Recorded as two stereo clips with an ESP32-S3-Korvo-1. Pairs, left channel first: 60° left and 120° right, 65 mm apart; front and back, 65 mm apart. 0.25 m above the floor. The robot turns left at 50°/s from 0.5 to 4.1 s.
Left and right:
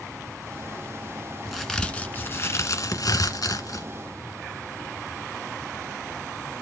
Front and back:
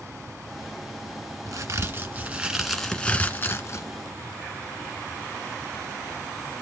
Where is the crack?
155° left, 1.9 m; by 3.9 s 35° left, 1.9 m.